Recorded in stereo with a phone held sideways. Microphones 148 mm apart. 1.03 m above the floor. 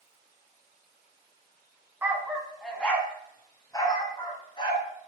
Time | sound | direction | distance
2.0 | a dog barking | 10° right (ahead or behind) | 1.6 m